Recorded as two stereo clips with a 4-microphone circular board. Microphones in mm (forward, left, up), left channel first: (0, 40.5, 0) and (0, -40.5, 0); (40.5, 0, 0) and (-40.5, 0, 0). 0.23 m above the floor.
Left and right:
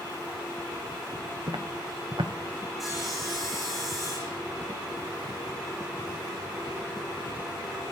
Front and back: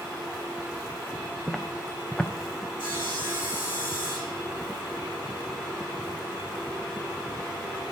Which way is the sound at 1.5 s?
80° right.